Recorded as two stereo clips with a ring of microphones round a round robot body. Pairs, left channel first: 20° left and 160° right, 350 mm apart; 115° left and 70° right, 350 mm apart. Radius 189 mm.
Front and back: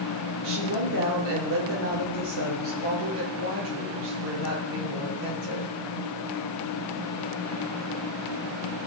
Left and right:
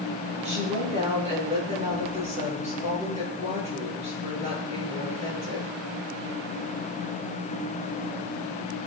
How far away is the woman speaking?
About 9 m.